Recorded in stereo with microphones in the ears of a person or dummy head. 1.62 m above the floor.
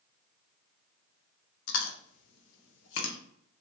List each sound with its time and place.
1.7 s chewing: 70° left (ahead or behind), 0.7 m